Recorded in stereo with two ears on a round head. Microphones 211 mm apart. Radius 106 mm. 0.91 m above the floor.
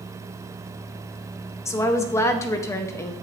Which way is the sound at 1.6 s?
10° left (ahead or behind).